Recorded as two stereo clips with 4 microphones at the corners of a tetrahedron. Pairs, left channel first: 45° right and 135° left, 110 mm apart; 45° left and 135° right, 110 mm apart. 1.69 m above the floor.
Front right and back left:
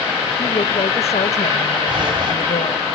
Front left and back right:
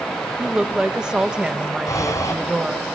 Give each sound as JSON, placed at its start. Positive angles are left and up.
{"t": 0.4, "sound": "a woman speaking", "azimuth_deg": -55, "distance_m": 1.8}
{"t": 1.9, "sound": "breathing", "azimuth_deg": 100, "distance_m": 3.0}